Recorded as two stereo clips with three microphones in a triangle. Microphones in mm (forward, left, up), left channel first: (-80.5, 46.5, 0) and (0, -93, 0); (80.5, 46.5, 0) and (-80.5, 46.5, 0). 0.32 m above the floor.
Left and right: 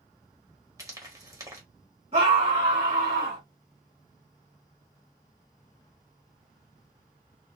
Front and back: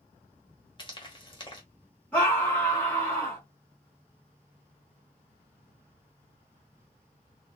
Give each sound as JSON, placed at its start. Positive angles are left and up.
{"t": 0.8, "sound": "frying", "azimuth_deg": -15, "distance_m": 1.3}
{"t": 2.1, "sound": "a scream", "azimuth_deg": -80, "distance_m": 1.6}